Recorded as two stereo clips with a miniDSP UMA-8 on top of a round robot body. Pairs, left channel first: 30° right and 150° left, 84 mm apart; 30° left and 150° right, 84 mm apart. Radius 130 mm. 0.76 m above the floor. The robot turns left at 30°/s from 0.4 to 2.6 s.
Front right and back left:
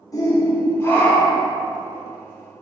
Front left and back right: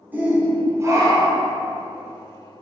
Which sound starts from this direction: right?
A shout, at 0.1 s.